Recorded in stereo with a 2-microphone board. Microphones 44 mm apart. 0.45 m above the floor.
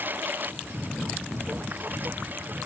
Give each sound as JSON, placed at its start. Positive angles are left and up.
{"t": 0.0, "sound": "a lawn mower", "side_deg": -50}